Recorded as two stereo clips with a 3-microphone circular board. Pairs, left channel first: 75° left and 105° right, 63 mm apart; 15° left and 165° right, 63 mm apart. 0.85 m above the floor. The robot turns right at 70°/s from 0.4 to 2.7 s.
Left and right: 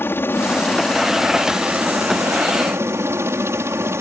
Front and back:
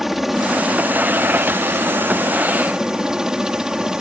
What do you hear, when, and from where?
0.0 s a helicopter: 110° left; by 4.0 s 90° right